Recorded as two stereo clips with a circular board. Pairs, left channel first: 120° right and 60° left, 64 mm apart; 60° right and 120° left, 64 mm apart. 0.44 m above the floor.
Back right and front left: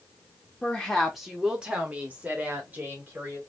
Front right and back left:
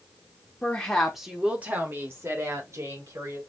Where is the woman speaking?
70° right, 1.1 m; by 3.4 s 115° left, 2 m.